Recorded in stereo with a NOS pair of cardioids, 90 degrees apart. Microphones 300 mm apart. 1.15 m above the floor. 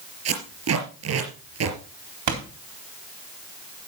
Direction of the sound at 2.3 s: 70° right.